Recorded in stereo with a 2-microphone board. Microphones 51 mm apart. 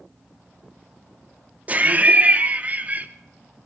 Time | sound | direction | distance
1.7 | laughter | 30° right (ahead or behind) | 0.6 m